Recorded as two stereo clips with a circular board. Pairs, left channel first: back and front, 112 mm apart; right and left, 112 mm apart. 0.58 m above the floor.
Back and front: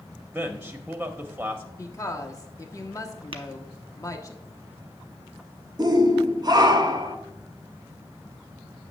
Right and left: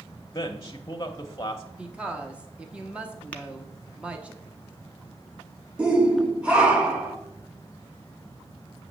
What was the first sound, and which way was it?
A man speaking, 65° right.